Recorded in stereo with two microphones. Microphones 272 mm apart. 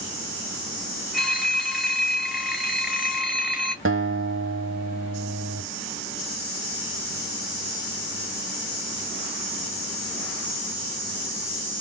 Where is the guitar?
50° right (ahead or behind), 0.9 m.